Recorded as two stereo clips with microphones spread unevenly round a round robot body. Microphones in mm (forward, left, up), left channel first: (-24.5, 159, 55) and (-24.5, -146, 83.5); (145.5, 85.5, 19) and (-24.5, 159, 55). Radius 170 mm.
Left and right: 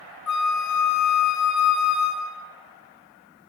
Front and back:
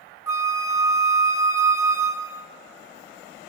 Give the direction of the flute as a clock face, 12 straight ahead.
9 o'clock.